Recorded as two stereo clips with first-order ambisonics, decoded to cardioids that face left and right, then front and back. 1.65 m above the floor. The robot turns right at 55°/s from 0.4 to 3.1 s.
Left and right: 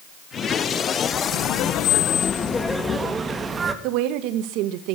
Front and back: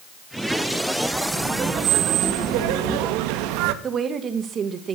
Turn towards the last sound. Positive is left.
turn(degrees=-115)